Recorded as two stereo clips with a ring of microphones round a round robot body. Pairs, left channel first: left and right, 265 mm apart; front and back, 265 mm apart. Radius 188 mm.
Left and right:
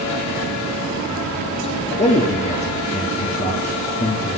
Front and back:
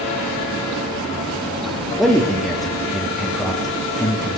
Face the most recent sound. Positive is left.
turn(degrees=90)